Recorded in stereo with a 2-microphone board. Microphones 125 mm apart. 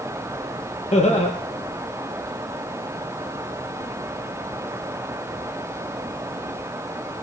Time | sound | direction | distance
0.9 | laughter | 60° left (ahead or behind) | 4.5 m